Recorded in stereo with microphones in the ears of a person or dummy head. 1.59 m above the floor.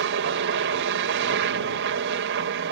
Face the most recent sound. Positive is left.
turn(degrees=-55)  # may be behind; listen again after turning